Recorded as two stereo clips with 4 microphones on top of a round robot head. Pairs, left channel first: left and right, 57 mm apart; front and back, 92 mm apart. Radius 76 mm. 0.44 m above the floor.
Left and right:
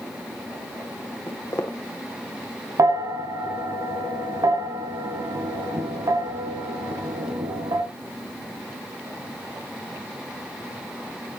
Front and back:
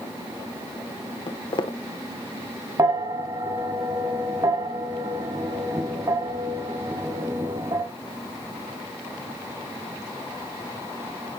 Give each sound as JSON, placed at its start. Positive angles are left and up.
{"t": 1.3, "sound": "footsteps", "azimuth_deg": 30, "distance_m": 1.7}
{"t": 2.8, "sound": "a bell", "azimuth_deg": -120, "distance_m": 1.7}